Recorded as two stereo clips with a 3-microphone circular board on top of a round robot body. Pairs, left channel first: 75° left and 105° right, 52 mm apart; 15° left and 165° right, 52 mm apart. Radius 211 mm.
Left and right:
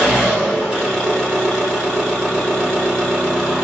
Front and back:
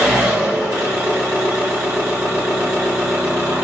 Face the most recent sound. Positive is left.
turn(degrees=175)